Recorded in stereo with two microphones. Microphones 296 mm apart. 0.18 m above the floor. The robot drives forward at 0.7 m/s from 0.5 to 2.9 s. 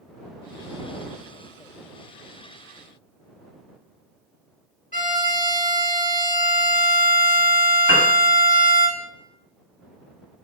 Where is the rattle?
I don't hear a rattle.